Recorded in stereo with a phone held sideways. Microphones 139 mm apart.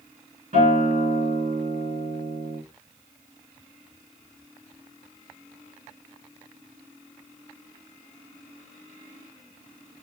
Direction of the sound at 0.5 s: 85° right.